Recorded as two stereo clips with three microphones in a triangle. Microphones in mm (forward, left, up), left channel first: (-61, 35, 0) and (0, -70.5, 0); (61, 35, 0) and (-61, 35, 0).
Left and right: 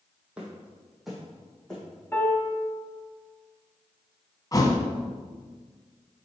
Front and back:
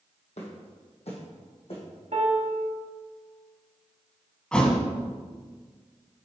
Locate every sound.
0.4 s footsteps: 20° left, 1.8 m; by 1.8 s 35° left, 2.5 m
2.1 s a piano: 165° right, 1.0 m
4.5 s a thud: 80° left, 0.8 m